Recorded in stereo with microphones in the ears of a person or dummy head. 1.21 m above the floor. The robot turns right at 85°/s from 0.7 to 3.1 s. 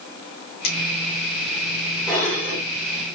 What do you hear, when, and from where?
0.6 s a finger snap: 70° left (ahead or behind), 2.5 m; by 0.8 s 65° left (ahead or behind), 2.5 m
2.1 s dishes clattering: straight behind, 2.5 m; by 2.6 s 130° right, 2.5 m